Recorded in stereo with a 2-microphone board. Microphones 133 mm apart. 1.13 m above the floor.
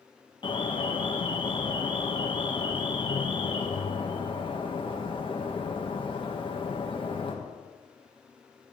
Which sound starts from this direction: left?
An alarm, at 0.4 s.